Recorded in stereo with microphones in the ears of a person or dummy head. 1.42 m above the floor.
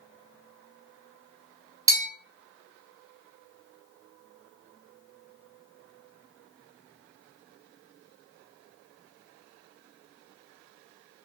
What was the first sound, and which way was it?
A bell, 15° right (ahead or behind).